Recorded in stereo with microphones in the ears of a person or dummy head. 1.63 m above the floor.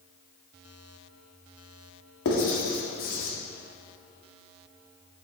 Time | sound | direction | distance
2.2 | writing | 60° left (ahead or behind) | 1.8 m